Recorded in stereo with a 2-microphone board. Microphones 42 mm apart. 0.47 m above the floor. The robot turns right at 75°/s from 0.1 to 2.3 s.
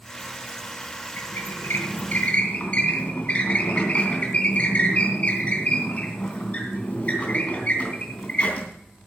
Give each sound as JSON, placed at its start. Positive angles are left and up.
{"t": 1.2, "sound": "a squeak", "azimuth_deg": 60, "distance_m": 3.0}